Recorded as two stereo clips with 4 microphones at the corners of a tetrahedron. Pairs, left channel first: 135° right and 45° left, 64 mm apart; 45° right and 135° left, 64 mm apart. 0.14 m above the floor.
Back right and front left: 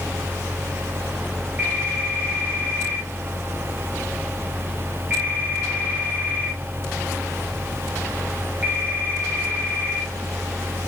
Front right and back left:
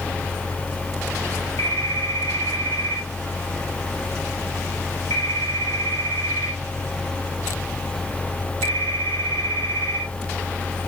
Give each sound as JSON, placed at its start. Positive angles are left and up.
{"t": 1.6, "sound": "a phone ringing", "azimuth_deg": -15, "distance_m": 6.0}